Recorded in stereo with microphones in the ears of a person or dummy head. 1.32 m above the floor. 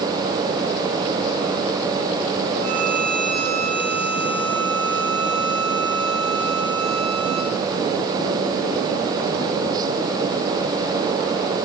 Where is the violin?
85° right, 4 m.